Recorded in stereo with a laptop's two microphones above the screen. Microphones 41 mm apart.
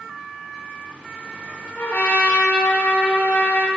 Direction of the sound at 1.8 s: 55° left (ahead or behind).